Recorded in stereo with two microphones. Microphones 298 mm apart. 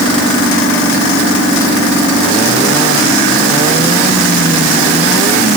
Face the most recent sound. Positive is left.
No sound to turn to.